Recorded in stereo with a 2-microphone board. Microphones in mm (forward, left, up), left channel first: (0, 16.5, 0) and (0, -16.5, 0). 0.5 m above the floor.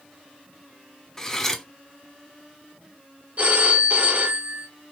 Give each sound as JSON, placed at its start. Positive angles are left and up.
{"t": 1.2, "sound": "cutlery clinking", "side_deg": 15, "distance_m": 0.6}
{"t": 3.4, "sound": "a phone ringing", "side_deg": -45, "distance_m": 0.9}